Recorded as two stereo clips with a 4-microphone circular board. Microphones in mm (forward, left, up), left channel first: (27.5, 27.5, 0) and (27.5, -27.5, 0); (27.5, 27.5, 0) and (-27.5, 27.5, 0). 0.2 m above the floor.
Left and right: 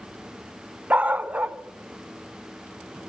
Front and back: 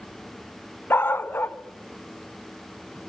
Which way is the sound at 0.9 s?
35° right.